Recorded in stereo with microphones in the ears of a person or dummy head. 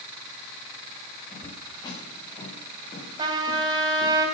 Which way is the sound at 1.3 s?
20° left (ahead or behind).